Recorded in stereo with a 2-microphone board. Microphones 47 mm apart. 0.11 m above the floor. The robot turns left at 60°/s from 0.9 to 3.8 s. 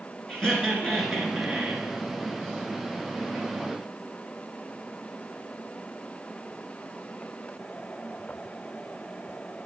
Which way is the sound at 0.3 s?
10° left (ahead or behind).